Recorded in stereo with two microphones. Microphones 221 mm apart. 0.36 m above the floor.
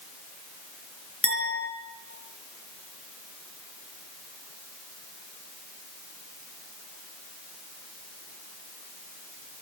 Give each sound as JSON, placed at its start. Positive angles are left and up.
{"t": 1.2, "sound": "a clink", "side_deg": 75, "distance_m": 5.0}